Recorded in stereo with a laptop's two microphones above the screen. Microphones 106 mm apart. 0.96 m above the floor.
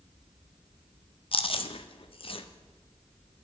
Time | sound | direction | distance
1.3 | chewing | 55° left (ahead or behind) | 0.5 m